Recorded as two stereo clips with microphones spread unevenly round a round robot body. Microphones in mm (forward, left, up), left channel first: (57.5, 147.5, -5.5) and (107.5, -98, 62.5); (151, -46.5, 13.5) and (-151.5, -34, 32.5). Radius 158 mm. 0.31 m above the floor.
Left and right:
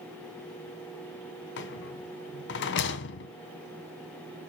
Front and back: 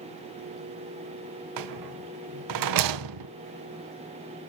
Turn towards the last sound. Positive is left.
turn(degrees=150)